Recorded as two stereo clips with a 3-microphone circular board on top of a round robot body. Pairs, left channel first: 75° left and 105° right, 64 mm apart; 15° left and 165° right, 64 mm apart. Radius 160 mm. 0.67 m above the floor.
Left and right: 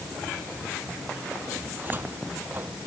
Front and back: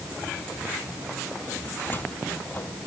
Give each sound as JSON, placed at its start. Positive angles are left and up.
{"t": 1.7, "sound": "a cupboard door", "azimuth_deg": -45}